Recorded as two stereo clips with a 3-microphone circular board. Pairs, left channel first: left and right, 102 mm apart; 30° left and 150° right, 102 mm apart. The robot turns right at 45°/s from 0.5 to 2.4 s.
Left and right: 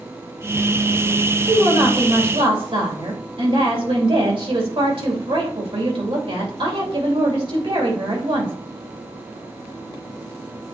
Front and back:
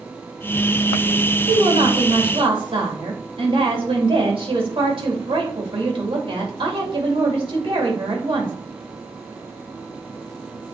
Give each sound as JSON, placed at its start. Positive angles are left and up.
{"t": 1.5, "sound": "a woman speaking", "azimuth_deg": -160, "distance_m": 2.5}